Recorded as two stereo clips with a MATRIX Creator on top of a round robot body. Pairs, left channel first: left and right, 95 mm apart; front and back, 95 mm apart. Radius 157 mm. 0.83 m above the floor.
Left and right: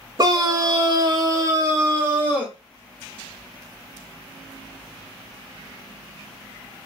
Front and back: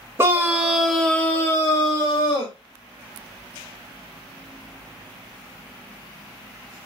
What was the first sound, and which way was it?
A scream, 125° right.